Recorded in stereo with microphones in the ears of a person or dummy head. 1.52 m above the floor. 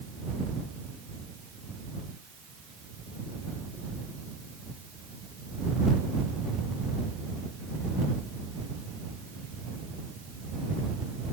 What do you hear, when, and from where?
Only background noise.